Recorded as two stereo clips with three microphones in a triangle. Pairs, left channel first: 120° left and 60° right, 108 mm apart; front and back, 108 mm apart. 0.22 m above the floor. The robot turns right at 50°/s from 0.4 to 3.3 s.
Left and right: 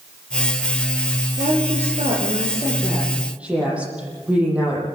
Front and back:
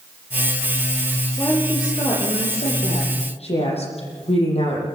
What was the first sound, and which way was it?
A woman speaking, 80° right.